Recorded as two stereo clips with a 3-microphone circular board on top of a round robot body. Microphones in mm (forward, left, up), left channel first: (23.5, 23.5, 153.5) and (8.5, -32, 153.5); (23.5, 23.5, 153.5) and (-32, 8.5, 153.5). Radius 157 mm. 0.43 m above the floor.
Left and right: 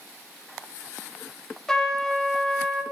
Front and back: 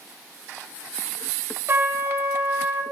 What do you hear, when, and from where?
1.7 s a trumpet: 155° left, 1.3 m